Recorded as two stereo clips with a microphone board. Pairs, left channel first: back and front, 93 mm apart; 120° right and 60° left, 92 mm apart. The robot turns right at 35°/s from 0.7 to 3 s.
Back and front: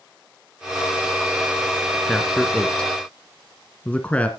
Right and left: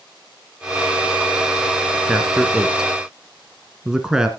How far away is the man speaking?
About 1.3 m.